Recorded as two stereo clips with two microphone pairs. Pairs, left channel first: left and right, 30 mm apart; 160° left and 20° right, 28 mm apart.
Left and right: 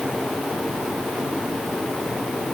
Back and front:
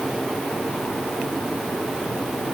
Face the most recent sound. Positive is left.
No sound to turn to.